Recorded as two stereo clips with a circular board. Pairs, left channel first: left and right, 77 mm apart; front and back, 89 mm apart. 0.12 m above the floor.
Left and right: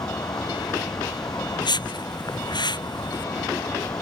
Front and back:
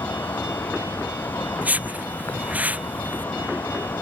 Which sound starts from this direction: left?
A whoosh, at 1.6 s.